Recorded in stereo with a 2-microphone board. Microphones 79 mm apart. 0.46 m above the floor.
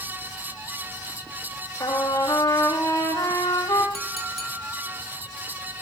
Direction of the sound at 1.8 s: 40° left (ahead or behind).